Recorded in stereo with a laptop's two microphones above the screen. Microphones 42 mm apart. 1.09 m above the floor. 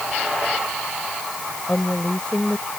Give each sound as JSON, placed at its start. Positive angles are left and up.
{"t": 1.7, "sound": "a woman speaking", "side_deg": 30}